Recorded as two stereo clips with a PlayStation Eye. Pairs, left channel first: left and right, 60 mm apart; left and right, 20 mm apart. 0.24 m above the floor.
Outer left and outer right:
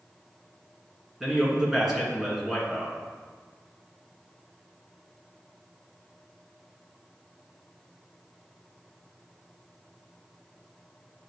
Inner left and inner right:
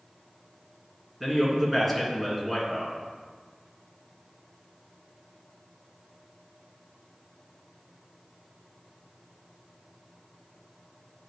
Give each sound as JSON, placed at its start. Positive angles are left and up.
{"t": 1.2, "sound": "a man speaking", "side_deg": -5, "distance_m": 2.0}